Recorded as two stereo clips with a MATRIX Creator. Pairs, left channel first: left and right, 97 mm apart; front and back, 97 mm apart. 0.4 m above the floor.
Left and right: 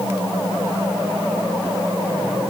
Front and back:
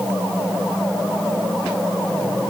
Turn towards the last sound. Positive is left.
No sound to turn to.